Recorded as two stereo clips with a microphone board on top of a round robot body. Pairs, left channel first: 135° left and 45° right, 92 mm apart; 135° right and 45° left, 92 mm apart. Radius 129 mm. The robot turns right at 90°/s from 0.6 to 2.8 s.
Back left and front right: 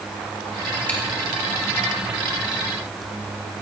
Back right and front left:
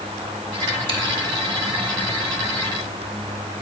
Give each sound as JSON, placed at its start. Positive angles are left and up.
{"t": 0.9, "sound": "chewing", "azimuth_deg": 60, "distance_m": 2.0}